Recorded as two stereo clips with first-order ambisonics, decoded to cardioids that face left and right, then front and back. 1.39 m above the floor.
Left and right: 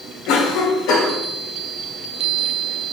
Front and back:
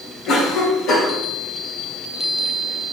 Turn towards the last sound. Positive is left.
turn(degrees=50)